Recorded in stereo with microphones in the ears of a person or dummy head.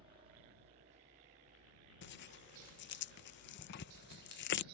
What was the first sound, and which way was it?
A helicopter, 30° right (ahead or behind).